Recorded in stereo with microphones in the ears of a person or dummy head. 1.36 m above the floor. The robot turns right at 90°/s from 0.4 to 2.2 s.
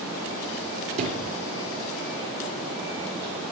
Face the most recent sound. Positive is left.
turn(degrees=45)